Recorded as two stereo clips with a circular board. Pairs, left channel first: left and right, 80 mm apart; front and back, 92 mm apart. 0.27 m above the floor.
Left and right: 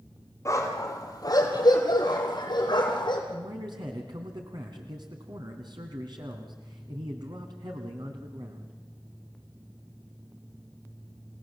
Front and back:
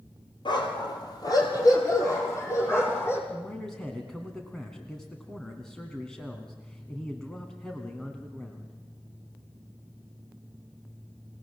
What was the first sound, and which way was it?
A dog barking, 35° left.